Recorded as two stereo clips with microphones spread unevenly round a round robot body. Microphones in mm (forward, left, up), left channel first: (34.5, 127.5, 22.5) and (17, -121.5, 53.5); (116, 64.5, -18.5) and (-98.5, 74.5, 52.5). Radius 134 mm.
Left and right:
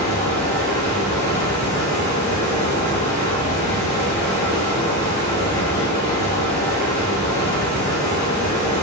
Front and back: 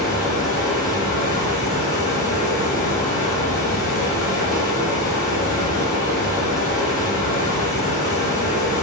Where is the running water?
45° left, 1.3 m.